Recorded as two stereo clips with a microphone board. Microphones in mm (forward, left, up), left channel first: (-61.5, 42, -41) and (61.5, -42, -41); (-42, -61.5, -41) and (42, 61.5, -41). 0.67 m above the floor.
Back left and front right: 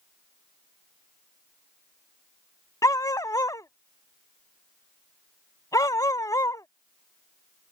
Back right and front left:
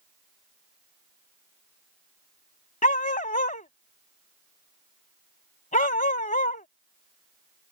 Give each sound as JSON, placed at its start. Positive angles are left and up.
{"t": 2.8, "sound": "a dog barking", "azimuth_deg": -150}